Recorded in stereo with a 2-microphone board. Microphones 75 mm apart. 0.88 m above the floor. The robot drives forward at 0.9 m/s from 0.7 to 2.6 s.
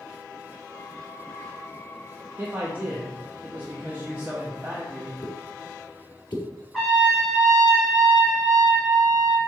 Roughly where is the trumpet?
Centre.